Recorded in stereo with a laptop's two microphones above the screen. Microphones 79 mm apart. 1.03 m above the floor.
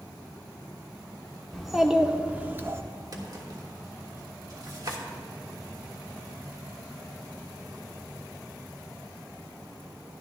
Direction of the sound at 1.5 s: Centre (ahead or behind).